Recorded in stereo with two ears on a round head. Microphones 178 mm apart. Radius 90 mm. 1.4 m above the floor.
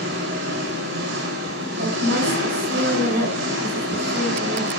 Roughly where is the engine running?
Right.